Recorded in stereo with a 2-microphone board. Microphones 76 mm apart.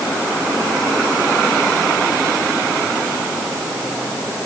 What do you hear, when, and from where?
Only background noise.